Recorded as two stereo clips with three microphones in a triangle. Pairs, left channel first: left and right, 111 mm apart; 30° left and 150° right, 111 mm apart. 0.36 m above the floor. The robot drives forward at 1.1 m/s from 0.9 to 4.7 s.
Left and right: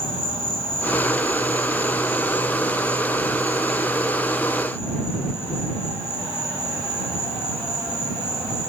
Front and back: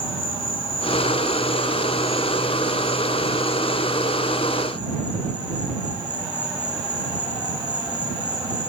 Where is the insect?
65° left, 1.4 m; by 8.7 s 160° left, 4 m.